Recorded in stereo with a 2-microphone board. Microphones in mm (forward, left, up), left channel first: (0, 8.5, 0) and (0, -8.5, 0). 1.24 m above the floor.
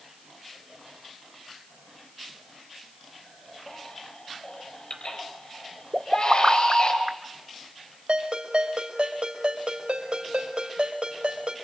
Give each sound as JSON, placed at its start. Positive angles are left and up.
{"t": 3.7, "sound": "a baby crying", "side_deg": 65, "distance_m": 4.5}
{"t": 5.9, "sound": "a pop", "side_deg": -70, "distance_m": 1.1}
{"t": 8.1, "sound": "a ringtone", "side_deg": -70, "distance_m": 3.5}